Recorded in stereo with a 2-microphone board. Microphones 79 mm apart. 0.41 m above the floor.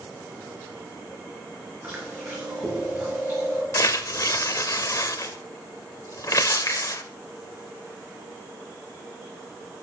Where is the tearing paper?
45° left (ahead or behind), 0.5 m.